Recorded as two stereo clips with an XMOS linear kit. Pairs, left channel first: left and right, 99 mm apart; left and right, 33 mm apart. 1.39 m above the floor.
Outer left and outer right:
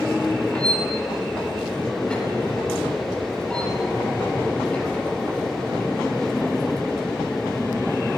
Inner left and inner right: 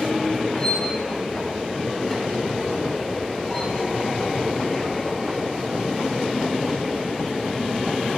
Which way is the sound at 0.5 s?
10° left (ahead or behind).